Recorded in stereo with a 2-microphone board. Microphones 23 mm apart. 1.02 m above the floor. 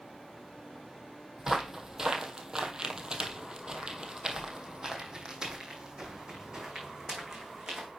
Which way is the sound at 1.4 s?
15° right (ahead or behind).